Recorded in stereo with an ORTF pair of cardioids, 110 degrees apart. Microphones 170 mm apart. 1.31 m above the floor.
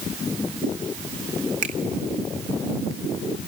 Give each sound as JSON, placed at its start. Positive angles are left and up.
{"t": 1.6, "sound": "a finger snap", "azimuth_deg": -45, "distance_m": 2.5}